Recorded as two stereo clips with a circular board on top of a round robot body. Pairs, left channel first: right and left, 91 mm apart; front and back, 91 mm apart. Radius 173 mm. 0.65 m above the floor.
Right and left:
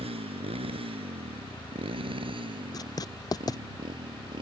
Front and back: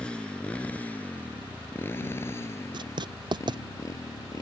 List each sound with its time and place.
0.0 s a motorcycle: 80° left; by 4.4 s 55° left
2.7 s writing: 140° right